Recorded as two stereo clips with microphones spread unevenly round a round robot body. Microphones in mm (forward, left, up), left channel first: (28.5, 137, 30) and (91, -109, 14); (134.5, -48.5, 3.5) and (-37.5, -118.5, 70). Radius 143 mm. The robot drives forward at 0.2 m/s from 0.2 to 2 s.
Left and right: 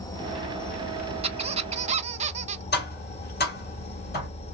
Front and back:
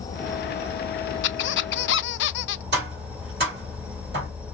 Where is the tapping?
155° left, 2.5 m.